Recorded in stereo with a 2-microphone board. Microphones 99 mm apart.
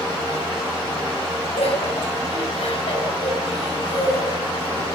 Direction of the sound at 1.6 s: 80° left.